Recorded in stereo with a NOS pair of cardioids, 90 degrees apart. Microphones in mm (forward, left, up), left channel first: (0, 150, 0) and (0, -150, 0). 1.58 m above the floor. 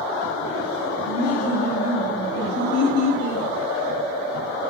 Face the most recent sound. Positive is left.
turn(degrees=60)